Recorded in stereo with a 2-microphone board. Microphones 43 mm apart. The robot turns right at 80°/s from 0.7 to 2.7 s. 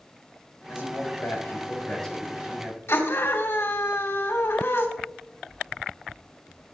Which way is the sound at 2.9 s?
70° left (ahead or behind).